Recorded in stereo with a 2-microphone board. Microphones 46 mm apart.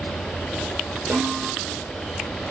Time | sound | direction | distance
1.1 | a snare drum | 25° right (ahead or behind) | 1.3 m